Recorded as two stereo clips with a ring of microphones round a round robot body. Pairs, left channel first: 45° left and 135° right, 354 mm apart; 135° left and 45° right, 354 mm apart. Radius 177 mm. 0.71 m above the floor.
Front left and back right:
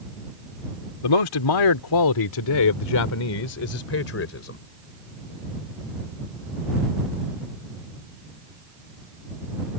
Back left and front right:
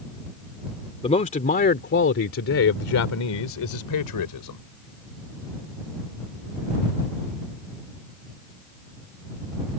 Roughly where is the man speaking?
Ahead left.